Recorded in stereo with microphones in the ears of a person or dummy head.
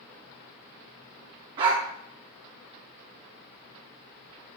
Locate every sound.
1.6 s a dog barking: 20° right (ahead or behind), 1.0 m